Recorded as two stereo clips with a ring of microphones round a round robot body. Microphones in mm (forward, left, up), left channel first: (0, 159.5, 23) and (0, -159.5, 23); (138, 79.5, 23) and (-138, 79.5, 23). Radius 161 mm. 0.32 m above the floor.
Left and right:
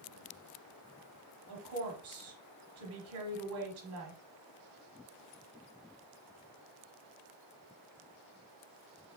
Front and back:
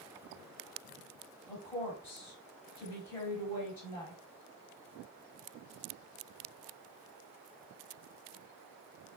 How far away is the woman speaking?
About 1.3 m.